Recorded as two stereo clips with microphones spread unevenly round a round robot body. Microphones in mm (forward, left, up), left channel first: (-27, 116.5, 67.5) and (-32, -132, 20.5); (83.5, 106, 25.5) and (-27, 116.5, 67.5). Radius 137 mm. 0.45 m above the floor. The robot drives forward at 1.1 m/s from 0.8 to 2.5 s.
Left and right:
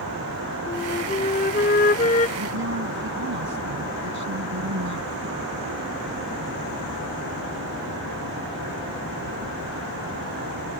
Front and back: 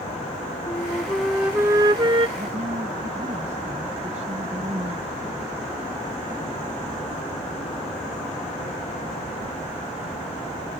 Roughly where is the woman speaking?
Behind right.